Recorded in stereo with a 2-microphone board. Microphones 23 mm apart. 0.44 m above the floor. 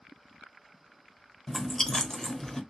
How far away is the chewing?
About 0.7 m.